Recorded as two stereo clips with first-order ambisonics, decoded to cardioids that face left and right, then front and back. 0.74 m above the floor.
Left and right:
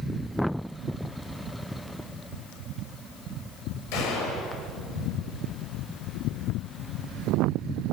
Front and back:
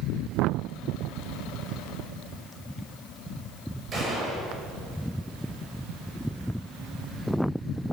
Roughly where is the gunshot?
Behind left.